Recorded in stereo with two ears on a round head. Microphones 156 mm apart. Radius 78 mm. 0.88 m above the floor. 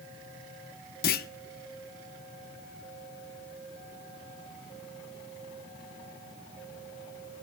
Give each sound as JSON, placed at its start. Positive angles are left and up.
{"t": 1.0, "sound": "a clunk", "side_deg": 55, "distance_m": 0.7}